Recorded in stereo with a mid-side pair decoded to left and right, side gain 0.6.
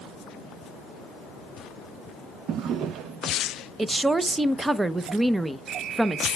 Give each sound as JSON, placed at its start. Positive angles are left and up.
{"t": 2.5, "sound": "a drawer", "azimuth_deg": -60, "distance_m": 0.7}
{"t": 3.8, "sound": "a woman speaking", "azimuth_deg": -10, "distance_m": 0.7}